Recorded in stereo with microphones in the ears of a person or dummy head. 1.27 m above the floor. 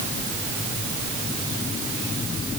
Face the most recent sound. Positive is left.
No sound to turn to.